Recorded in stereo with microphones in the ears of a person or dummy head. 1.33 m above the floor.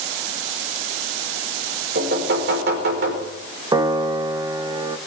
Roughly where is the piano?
Centre.